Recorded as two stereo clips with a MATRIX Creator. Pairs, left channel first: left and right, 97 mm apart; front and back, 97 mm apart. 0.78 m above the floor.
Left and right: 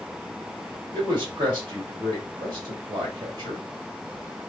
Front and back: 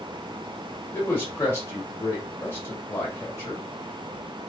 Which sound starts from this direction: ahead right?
A man speaking, at 0.9 s.